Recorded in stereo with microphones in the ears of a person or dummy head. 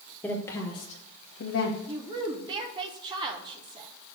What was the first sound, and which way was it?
A woman speaking, 5° left (ahead or behind).